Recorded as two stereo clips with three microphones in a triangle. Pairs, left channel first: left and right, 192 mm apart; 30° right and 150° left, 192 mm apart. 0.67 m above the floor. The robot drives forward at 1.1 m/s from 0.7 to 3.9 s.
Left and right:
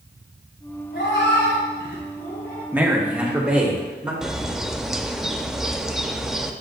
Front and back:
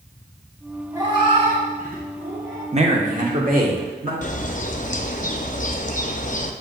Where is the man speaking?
165° right, 1.0 m; by 4.1 s 175° right, 2 m.